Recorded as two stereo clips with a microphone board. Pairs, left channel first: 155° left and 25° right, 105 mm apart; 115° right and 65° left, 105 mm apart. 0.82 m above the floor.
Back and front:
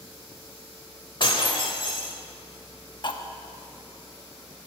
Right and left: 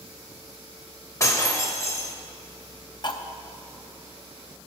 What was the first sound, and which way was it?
Breaking glass, 170° right.